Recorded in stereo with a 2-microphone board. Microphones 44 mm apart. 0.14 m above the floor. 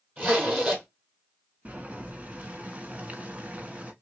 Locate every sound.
0.2 s a zipper: 25° right (ahead or behind), 2.5 m
1.6 s boiling: 30° right (ahead or behind), 1.2 m